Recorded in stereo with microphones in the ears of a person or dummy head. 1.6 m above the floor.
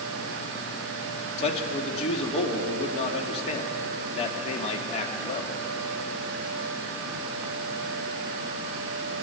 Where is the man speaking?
35° left (ahead or behind), 2.5 m.